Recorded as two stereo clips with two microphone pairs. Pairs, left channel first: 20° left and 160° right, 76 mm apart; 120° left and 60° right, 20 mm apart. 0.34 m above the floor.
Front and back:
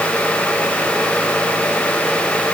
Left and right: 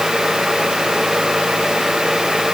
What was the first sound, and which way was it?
Only background noise.